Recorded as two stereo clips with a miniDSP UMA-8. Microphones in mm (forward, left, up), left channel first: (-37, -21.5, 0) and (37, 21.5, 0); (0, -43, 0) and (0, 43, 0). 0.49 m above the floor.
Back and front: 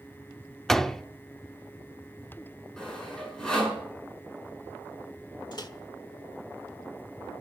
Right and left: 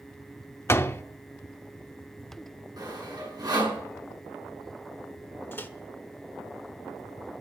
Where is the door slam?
70° right, 0.6 m.